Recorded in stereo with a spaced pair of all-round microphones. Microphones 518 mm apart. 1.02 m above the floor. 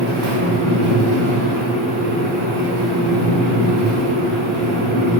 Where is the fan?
65° right (ahead or behind), 0.9 m.